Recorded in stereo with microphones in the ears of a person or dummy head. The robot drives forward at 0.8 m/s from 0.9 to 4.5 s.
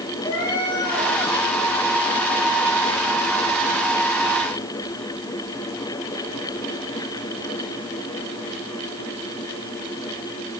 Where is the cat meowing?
25° left (ahead or behind), 3 m; by 1.1 s 30° left (ahead or behind), 2.5 m.